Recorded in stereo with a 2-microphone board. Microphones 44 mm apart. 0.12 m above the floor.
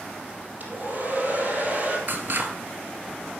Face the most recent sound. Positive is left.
turn(degrees=-50)  # may be behind; listen again after turning